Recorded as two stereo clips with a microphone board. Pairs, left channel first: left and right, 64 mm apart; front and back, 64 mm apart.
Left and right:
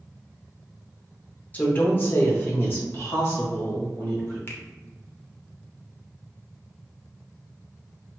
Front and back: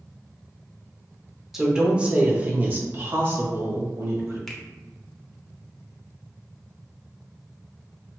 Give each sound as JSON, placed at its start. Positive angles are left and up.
{"t": 1.5, "sound": "a woman speaking", "azimuth_deg": 100, "distance_m": 0.8}
{"t": 4.5, "sound": "a finger snap", "azimuth_deg": 85, "distance_m": 0.7}